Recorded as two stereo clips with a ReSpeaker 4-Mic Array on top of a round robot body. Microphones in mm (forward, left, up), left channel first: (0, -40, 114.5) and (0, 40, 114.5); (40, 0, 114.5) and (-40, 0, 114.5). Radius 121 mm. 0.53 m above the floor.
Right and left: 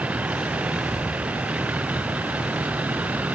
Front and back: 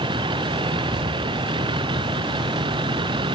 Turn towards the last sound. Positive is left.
turn(degrees=165)